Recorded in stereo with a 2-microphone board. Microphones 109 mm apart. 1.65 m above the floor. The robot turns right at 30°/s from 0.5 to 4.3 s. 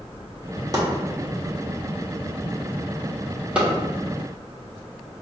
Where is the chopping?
35° right (ahead or behind), 1.2 m; by 3.7 s 10° right (ahead or behind), 1.2 m.